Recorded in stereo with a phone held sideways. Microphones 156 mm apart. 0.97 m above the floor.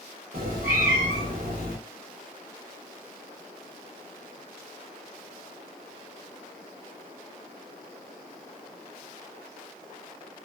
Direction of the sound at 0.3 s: 70° right (ahead or behind).